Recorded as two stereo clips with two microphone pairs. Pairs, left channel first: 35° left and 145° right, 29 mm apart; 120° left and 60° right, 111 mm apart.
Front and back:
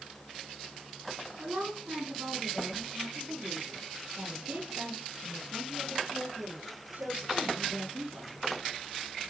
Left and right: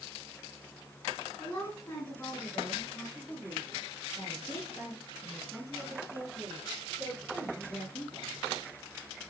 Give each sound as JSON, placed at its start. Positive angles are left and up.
{"t": 1.4, "sound": "a woman speaking", "azimuth_deg": -170, "distance_m": 3.5}